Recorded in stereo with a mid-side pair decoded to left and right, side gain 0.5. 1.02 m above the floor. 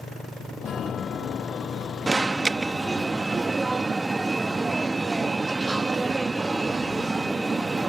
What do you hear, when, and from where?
0.6 s a chime: 50° left
2.1 s an alarm: 20° right